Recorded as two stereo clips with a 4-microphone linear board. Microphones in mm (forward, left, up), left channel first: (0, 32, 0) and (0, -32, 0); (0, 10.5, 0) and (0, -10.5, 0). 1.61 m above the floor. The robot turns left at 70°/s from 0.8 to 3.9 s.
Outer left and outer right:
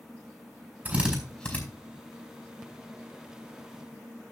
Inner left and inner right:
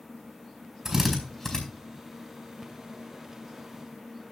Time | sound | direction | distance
0.8 | a drill | 30° right (ahead or behind) | 4.5 m